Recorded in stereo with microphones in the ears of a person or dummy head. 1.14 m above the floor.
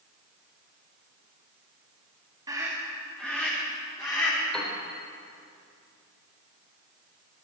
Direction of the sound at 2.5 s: 20° right (ahead or behind).